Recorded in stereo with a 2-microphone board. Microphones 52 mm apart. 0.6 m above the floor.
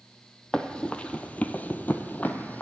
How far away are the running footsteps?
About 0.8 m.